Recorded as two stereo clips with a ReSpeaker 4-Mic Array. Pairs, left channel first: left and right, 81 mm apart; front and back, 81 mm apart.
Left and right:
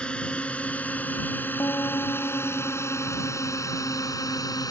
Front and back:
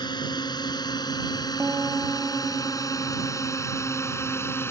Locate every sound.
0.0 s a drone: 15° left; by 4.7 s 55° left
1.6 s a piano: 130° left